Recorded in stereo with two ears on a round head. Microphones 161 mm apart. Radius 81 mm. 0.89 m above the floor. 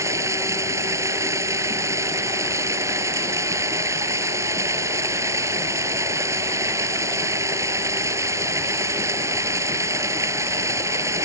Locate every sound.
0.0 s running water: 20° right (ahead or behind)